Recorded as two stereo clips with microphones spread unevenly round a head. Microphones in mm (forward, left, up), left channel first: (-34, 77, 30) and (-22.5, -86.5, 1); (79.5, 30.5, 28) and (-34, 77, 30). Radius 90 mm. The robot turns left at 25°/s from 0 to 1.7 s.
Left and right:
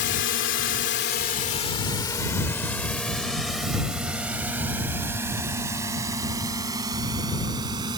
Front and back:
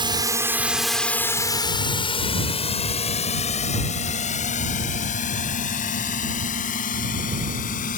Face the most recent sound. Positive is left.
turn(degrees=-15)